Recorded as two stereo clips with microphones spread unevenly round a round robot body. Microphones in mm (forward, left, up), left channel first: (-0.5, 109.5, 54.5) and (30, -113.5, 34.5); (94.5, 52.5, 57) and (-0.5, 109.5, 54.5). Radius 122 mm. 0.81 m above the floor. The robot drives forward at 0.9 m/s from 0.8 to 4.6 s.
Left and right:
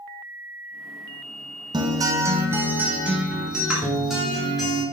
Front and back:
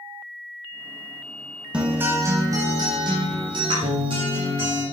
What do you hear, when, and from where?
1.7 s a guitar: 135° right, 1.3 m; by 4.8 s 170° right, 3.5 m